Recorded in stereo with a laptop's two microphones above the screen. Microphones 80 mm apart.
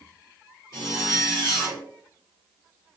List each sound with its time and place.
0.7 s a zipper: 55° left (ahead or behind), 2 m